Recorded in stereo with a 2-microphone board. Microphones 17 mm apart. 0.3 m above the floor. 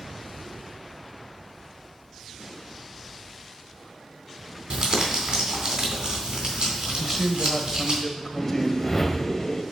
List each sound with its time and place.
4.7 s crumpling: 60° right (ahead or behind), 3 m
7.0 s a man speaking: 20° left (ahead or behind), 1.1 m
8.4 s a whoosh: 25° left (ahead or behind), 1.0 m